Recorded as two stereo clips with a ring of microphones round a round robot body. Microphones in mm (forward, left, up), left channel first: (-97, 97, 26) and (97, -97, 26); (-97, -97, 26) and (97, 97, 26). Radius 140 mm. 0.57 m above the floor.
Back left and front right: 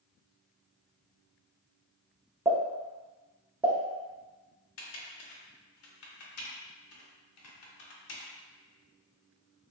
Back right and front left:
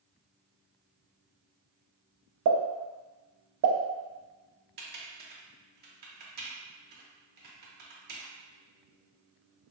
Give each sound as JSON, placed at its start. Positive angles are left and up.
{"t": 2.5, "sound": "a pop", "azimuth_deg": 30, "distance_m": 0.5}
{"t": 4.8, "sound": "typing on a keyboard", "azimuth_deg": 100, "distance_m": 0.7}